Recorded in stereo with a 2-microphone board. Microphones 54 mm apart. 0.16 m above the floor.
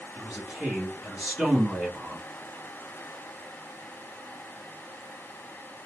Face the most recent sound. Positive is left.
turn(degrees=-20)  # may be behind; listen again after turning